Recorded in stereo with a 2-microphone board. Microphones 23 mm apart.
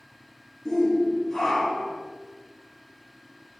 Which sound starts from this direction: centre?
A shout, at 0.7 s.